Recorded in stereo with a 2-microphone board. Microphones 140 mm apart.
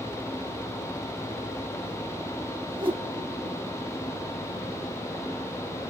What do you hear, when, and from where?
2.8 s a whoosh: 40° right (ahead or behind), 1.1 m